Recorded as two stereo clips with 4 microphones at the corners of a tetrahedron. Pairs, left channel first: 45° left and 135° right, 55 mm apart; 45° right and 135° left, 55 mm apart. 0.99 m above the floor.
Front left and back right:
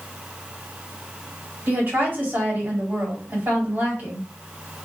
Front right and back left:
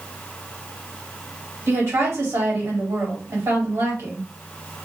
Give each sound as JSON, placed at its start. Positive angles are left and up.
{"t": 1.7, "sound": "a woman speaking", "azimuth_deg": 175, "distance_m": 1.7}